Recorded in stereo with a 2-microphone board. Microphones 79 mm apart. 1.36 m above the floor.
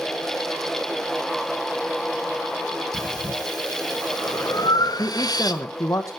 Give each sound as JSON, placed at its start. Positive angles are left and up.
{"t": 2.9, "sound": "breathing", "side_deg": 55, "distance_m": 1.2}
{"t": 5.0, "sound": "a man speaking", "side_deg": 35, "distance_m": 1.1}